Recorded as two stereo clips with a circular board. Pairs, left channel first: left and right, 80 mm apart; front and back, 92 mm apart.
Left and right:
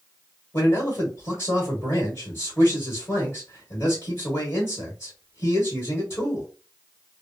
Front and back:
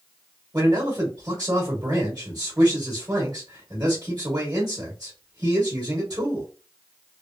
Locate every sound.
0.5 s a man speaking: 135° left, 1.5 m